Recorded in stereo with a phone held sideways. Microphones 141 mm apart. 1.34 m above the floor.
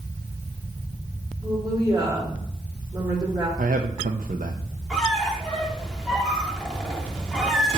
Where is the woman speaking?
30° right (ahead or behind), 5 m.